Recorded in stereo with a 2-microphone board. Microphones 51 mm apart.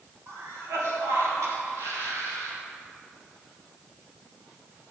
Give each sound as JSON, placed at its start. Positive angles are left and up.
{"t": 0.3, "sound": "a cough", "side_deg": -75, "distance_m": 2.5}